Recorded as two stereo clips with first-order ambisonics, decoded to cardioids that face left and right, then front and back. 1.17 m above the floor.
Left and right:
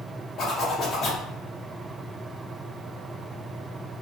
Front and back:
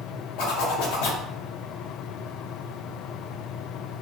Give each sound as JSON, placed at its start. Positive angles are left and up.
{"t": 0.4, "sound": "a zipper", "azimuth_deg": 25, "distance_m": 0.7}